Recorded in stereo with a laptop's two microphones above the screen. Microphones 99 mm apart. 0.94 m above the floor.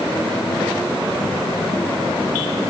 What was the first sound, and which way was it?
Only background noise.